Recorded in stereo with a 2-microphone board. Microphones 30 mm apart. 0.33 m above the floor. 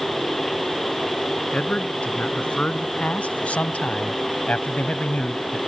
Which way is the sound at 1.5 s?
50° left (ahead or behind).